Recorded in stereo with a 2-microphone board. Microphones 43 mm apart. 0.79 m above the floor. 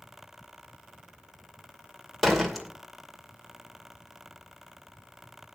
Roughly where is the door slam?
Centre.